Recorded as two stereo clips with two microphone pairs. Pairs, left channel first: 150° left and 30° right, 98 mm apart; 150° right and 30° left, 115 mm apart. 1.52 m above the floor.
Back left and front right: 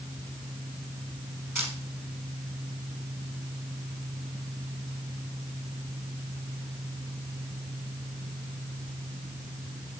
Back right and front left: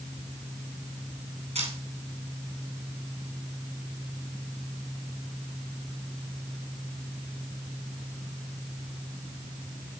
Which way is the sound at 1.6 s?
40° left.